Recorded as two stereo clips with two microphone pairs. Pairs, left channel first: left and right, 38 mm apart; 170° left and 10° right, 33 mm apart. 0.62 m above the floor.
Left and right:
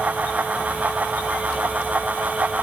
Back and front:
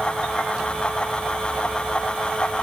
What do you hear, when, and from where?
Only background noise.